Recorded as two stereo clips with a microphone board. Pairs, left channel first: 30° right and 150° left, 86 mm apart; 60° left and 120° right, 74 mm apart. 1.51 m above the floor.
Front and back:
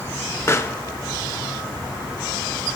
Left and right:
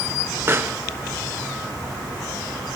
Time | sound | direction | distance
0.5 | a pop | 75° right | 0.6 m